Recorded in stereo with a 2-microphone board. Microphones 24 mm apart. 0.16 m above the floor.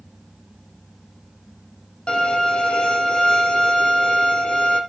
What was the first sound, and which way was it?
A violin, 40° left (ahead or behind).